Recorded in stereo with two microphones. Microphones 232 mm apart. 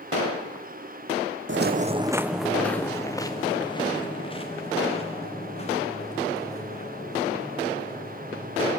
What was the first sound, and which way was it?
Footsteps, 60° right (ahead or behind).